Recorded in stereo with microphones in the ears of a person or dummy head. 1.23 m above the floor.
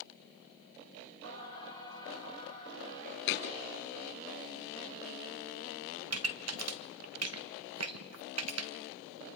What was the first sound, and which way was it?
Singing, 75° right (ahead or behind).